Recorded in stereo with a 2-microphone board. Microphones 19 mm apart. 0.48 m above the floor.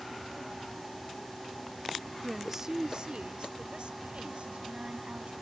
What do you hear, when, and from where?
2.2 s a woman speaking: centre (ahead or behind); by 5.3 s 70° right (ahead or behind)